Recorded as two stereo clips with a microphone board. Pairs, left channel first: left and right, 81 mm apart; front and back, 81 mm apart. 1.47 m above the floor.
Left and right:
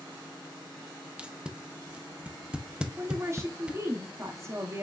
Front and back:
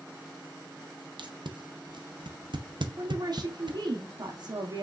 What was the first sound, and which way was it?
Tape being pulled, 165° right.